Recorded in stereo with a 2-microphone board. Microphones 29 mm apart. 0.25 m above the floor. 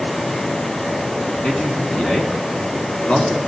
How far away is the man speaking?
About 2.5 m.